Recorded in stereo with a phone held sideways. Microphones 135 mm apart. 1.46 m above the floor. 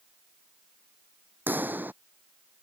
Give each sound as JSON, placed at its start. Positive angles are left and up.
{"t": 1.5, "sound": "a pop", "side_deg": -15}